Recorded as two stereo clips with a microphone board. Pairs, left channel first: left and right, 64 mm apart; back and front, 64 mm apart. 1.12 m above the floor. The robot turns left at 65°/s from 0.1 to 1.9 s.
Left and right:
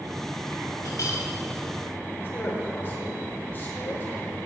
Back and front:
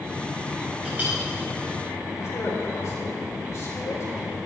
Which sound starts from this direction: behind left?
A man speaking, at 2.2 s.